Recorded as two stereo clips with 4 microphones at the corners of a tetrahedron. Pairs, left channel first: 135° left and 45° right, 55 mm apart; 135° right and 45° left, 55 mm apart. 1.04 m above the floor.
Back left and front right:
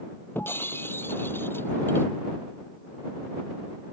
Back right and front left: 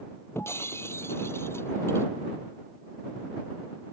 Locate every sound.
0.3 s breaking glass: 175° right